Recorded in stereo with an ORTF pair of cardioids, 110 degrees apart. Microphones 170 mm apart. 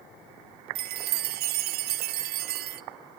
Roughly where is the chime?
Right.